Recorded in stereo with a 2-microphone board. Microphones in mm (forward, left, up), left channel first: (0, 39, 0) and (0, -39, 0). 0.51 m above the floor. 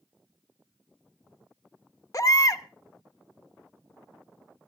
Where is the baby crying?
45° left (ahead or behind), 0.6 m.